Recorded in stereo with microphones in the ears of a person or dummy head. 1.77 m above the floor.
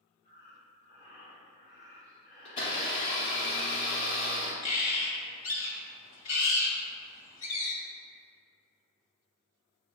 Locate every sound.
0.2 s breathing: 25° right (ahead or behind), 1.8 m
2.5 s a blender: 35° left (ahead or behind), 0.9 m
4.6 s a bird: 40° left (ahead or behind), 1.2 m